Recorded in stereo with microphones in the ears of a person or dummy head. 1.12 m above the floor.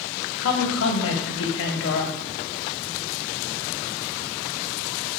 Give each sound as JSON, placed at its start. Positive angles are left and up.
{"t": 0.4, "sound": "a woman speaking", "side_deg": 65, "distance_m": 0.6}